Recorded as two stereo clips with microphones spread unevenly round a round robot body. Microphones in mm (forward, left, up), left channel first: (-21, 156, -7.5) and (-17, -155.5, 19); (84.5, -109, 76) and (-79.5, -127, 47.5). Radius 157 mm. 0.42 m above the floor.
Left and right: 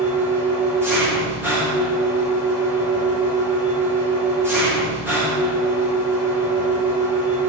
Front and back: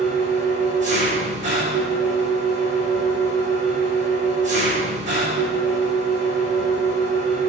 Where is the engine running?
175° right, 7.5 m.